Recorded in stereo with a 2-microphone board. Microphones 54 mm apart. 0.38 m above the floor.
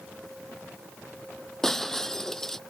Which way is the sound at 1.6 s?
10° left (ahead or behind).